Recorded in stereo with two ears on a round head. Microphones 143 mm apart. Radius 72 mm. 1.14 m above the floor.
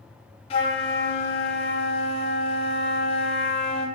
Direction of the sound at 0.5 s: 35° left (ahead or behind).